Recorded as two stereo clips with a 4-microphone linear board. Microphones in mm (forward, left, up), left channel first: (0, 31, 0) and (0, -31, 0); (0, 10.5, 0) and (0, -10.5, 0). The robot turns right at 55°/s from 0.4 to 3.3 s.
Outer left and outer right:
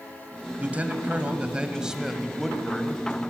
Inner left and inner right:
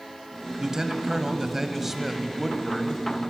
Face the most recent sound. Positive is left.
turn(degrees=15)  # may be behind; listen again after turning